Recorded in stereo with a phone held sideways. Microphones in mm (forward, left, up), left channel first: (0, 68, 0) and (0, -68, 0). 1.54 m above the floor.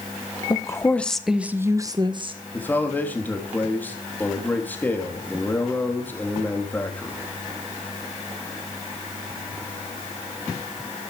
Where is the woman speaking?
25° left (ahead or behind), 1.4 m; by 2.4 s 40° right (ahead or behind), 1.7 m.